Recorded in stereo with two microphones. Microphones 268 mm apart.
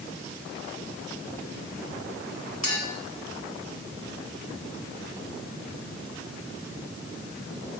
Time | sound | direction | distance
2.6 | a clink | 80° left | 3.5 m